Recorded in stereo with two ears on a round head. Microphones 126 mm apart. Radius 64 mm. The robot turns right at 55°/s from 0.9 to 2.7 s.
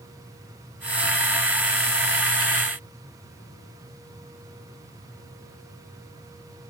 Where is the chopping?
No chopping in this recording.